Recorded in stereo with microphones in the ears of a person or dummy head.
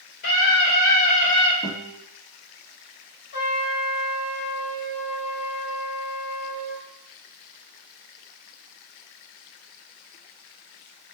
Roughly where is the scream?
Left.